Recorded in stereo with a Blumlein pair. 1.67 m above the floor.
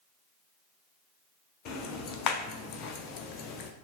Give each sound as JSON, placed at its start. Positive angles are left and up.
{"t": 1.6, "sound": "ticking", "azimuth_deg": 35, "distance_m": 0.5}